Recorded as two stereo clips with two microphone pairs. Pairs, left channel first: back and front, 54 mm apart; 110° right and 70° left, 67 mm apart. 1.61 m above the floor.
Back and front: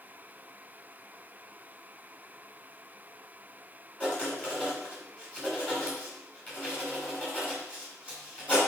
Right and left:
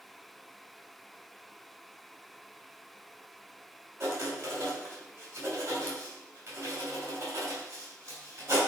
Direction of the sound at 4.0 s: 115° left.